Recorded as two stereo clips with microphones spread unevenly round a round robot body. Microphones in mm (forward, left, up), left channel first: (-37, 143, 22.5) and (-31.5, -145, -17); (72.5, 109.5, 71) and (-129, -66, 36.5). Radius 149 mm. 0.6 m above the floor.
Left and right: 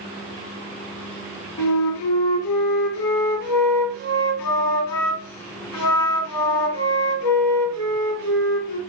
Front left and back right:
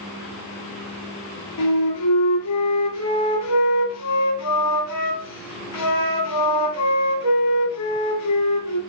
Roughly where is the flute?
Left.